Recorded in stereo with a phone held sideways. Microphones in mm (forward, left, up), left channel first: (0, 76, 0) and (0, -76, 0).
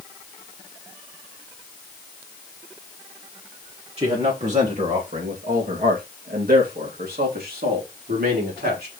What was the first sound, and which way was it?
A man speaking, 45° right (ahead or behind).